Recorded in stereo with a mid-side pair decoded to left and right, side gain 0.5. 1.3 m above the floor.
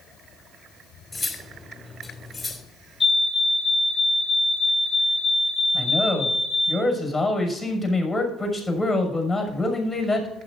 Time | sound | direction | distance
1.1 | cutlery clinking | 10° left | 3 m
3.0 | a fire alarm | 15° left | 5 m
5.7 | a man speaking | 5° left | 6 m